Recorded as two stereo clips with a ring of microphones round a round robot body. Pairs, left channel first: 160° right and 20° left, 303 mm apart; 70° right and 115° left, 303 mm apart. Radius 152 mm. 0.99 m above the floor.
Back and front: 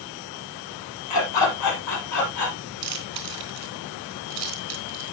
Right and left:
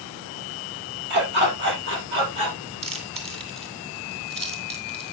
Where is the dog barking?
170° left, 7 m; by 2.6 s 165° left, 6 m.